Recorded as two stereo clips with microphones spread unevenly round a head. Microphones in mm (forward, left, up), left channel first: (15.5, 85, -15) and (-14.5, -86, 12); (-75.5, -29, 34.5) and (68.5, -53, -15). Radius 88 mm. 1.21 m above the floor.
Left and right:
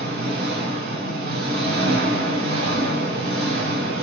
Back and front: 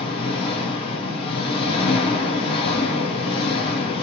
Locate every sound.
0.0 s an engine running: 140° right, 1.3 m